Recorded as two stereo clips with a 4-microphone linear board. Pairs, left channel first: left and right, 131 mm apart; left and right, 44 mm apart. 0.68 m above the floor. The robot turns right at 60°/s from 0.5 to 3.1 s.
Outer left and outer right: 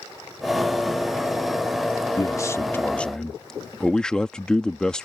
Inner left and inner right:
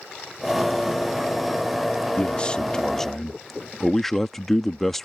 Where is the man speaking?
25° left (ahead or behind); by 5.1 s 5° left (ahead or behind).